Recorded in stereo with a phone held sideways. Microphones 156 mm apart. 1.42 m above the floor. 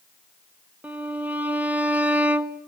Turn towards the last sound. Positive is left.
turn(degrees=-10)  # may be behind; listen again after turning